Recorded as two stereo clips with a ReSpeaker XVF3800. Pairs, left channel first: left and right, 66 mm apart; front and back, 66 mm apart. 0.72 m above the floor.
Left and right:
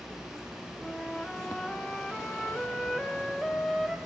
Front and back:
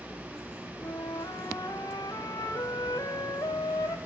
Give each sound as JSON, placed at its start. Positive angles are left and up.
{"t": 0.8, "sound": "a flute", "azimuth_deg": 5, "distance_m": 1.4}